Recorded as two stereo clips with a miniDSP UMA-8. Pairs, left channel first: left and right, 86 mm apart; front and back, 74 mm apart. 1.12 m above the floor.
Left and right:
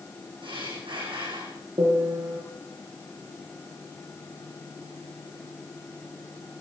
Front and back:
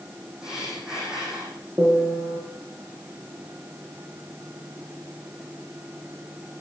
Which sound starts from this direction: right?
Breathing, at 0.4 s.